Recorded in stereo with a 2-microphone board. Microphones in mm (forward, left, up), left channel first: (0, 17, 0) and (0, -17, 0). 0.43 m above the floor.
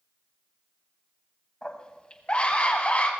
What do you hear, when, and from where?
1.6 s a scream: 25° left (ahead or behind), 2 m; by 3.1 s 45° left (ahead or behind), 2.5 m